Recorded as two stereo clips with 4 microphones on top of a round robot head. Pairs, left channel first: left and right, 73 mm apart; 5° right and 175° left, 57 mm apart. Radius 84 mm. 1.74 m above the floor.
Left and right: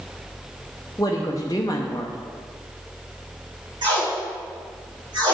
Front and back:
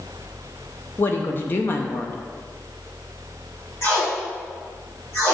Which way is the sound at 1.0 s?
40° left.